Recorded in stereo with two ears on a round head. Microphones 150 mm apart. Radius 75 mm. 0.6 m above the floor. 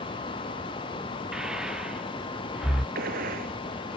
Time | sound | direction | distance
1.3 | breathing | 5° right (ahead or behind) | ?
3.0 | a gunshot | 60° right (ahead or behind) | ?